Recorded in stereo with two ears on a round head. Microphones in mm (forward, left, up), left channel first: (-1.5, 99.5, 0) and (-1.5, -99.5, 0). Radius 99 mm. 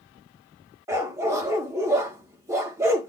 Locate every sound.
0.9 s a dog barking: 10° right (ahead or behind), 1.2 m